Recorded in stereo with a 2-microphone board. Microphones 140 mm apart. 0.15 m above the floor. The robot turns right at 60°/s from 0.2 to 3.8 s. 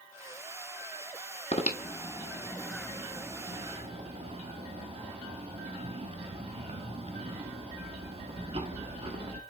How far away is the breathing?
About 0.7 m.